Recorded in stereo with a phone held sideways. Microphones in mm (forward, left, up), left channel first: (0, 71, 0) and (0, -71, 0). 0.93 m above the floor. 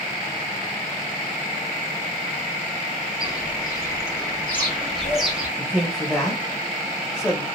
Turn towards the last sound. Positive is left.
turn(degrees=0)  # may be behind; listen again after turning